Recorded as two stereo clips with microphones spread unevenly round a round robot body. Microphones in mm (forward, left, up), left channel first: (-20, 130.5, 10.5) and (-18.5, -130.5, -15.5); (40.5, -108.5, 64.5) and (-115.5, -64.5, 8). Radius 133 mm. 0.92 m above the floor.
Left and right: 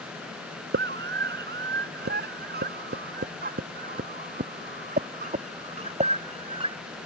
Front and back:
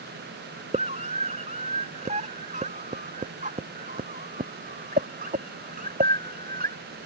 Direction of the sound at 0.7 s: 145° right.